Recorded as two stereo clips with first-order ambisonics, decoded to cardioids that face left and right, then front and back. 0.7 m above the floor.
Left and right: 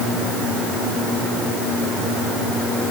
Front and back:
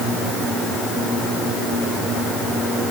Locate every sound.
Only background noise.